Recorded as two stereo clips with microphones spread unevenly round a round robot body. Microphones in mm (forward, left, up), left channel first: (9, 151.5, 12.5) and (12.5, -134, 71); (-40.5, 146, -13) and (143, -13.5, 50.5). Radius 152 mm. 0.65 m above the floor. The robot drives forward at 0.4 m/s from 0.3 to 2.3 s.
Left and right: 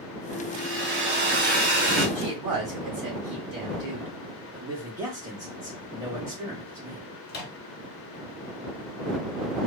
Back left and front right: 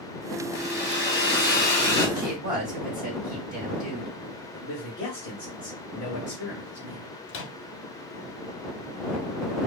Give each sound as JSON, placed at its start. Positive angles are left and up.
{"t": 0.5, "sound": "a hair dryer", "azimuth_deg": -140, "distance_m": 1.2}
{"t": 2.1, "sound": "a woman speaking", "azimuth_deg": -170, "distance_m": 2.5}
{"t": 4.5, "sound": "a man speaking", "azimuth_deg": -175, "distance_m": 0.9}
{"t": 7.3, "sound": "a microwave", "azimuth_deg": 135, "distance_m": 0.7}